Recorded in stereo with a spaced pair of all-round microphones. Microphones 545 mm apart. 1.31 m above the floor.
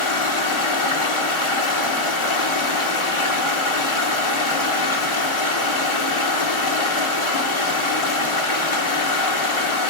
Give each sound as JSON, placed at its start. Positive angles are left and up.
{"t": 0.0, "sound": "running water", "side_deg": 55, "distance_m": 1.6}